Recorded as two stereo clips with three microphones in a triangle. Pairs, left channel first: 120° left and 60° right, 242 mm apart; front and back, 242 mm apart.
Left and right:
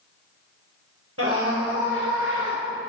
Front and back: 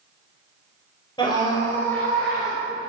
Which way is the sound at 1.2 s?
70° right.